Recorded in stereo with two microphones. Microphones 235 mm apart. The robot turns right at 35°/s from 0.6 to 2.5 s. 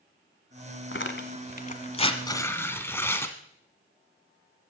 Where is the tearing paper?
55° left (ahead or behind), 1.1 m; by 3.4 s 10° left (ahead or behind), 1.1 m.